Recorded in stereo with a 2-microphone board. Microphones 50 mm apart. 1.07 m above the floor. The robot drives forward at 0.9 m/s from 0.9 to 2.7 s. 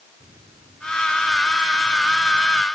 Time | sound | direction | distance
0.2 | a microwave | 75° right (ahead or behind) | ?